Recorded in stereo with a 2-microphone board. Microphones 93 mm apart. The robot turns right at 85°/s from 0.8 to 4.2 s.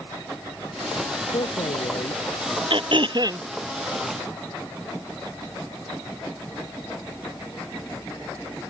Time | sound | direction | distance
1.3 | a man speaking | 65° left | ?
2.7 | throat clearing | 100° right | ?